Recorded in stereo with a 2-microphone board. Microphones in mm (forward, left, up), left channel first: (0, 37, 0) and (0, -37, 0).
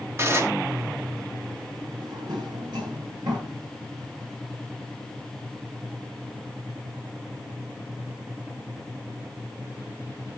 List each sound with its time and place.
0.2 s dishes clattering: 35° right (ahead or behind), 1.5 m
2.0 s a drawer: 70° right (ahead or behind), 9.5 m